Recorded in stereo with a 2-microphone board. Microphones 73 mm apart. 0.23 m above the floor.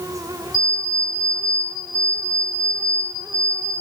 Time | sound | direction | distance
0.5 | an alarm clock | 65° left (ahead or behind) | 3.5 m